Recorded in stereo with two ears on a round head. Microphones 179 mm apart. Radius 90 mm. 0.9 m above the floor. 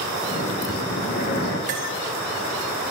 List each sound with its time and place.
0.3 s breathing: 60° left (ahead or behind), 1.5 m
1.7 s cutlery clinking: 40° right (ahead or behind), 1.0 m